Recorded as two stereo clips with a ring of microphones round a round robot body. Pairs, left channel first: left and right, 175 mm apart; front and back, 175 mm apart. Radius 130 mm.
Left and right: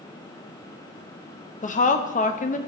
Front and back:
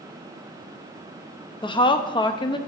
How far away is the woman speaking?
About 0.7 m.